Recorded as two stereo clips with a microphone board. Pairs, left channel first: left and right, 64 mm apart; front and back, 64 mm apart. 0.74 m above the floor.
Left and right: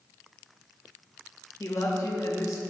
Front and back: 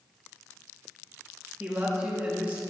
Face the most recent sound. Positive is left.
turn(degrees=115)